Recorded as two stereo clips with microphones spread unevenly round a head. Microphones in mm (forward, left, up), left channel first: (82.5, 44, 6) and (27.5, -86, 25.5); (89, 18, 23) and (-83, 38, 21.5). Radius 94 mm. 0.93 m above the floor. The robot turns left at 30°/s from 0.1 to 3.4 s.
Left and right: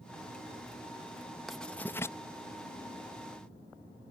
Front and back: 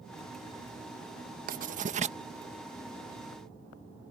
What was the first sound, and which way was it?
Writing, 150° left.